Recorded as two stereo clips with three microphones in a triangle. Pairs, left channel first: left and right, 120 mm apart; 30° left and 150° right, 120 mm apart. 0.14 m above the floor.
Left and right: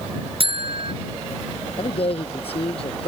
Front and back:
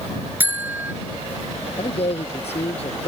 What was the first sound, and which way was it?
A buzzer, 80° right.